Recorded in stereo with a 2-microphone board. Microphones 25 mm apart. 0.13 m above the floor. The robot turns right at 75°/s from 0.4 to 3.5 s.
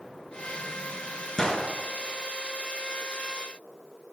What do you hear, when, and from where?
1.4 s a gunshot: 35° left (ahead or behind), 1.5 m; by 1.7 s 45° left (ahead or behind), 1.5 m